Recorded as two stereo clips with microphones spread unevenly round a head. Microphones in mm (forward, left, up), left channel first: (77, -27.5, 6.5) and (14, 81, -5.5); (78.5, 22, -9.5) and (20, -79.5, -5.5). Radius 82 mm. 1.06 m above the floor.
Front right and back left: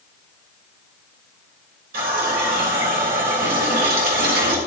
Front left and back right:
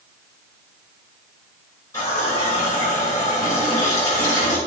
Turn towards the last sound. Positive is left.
turn(degrees=130)